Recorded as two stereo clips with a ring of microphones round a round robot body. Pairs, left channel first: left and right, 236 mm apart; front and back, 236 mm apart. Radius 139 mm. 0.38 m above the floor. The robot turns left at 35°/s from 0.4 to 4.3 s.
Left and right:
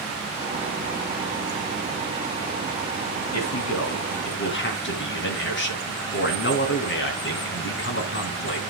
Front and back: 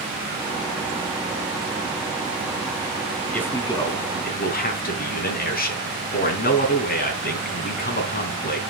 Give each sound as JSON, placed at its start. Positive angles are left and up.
{"t": 3.3, "sound": "a man speaking", "azimuth_deg": 85, "distance_m": 3.5}